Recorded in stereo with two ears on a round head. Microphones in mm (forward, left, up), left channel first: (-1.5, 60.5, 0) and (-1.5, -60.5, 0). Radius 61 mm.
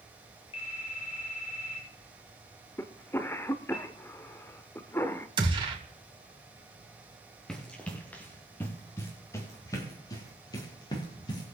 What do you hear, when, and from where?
0.5 s a phone ringing: 45° left (ahead or behind), 7 m
2.8 s a cough: 15° left (ahead or behind), 0.8 m
5.4 s a gunshot: 35° right (ahead or behind), 2.5 m
7.5 s running footsteps: 5° left (ahead or behind), 3 m; by 11.6 s 35° left (ahead or behind), 5 m